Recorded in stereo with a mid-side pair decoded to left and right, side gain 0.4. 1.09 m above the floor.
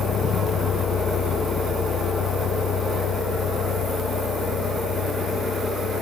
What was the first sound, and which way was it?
A vehicle, 65° left.